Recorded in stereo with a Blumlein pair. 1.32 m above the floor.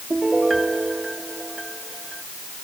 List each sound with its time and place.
0.1 s a piano: 10° right